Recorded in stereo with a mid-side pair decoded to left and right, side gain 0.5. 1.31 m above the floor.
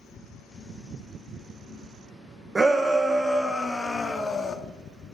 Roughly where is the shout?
Ahead right.